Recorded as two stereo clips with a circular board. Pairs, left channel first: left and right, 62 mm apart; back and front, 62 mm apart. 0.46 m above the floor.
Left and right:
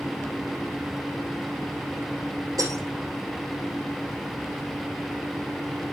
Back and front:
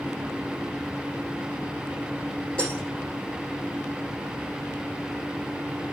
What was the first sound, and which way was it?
Breaking glass, 110° right.